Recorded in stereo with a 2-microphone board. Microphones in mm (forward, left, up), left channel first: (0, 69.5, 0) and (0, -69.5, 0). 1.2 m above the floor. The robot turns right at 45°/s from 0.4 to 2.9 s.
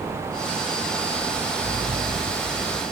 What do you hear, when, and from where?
1.6 s a sliding door: 65° right, 4.5 m; by 2.8 s 15° right, 4.5 m